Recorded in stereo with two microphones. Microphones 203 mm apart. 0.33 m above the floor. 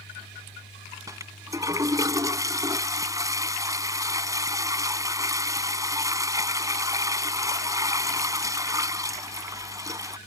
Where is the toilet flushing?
15° right (ahead or behind).